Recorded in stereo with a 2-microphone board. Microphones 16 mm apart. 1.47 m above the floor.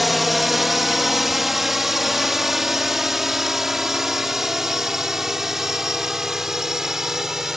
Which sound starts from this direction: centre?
A drone, at 0.0 s.